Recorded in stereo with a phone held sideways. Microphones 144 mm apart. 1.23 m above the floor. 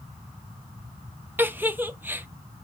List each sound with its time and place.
1.4 s a giggle: 15° right (ahead or behind), 0.5 m